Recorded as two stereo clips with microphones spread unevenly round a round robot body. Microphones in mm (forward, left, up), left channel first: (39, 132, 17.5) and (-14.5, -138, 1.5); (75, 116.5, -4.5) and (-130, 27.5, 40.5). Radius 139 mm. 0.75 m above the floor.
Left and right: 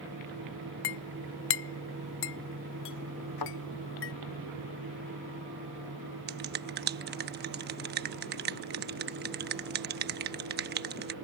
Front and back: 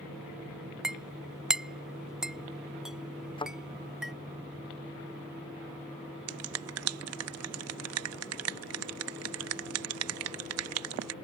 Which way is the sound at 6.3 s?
150° right.